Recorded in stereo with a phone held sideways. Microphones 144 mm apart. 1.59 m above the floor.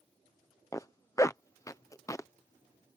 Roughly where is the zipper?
Left.